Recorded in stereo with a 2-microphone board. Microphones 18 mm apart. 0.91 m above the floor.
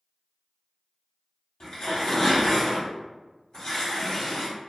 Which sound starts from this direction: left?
Tearing paper, at 1.6 s.